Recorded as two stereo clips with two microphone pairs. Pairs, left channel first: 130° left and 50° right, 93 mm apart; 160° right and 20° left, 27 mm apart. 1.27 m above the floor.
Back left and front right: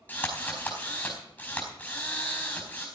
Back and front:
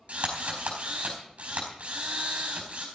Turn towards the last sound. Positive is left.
turn(degrees=60)